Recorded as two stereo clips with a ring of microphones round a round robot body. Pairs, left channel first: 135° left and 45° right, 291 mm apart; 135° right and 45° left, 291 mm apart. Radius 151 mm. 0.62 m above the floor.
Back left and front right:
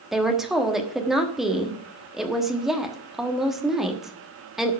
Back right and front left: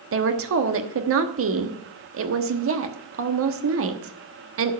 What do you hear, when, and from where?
0.1 s a woman speaking: 45° left, 1.2 m